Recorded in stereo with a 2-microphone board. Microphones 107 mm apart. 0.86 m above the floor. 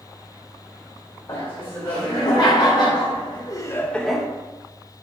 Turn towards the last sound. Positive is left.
turn(degrees=-5)  # may be behind; listen again after turning